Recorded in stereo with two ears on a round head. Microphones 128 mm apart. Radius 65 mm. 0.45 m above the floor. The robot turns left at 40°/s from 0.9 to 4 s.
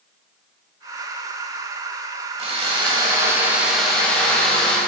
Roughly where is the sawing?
Behind right.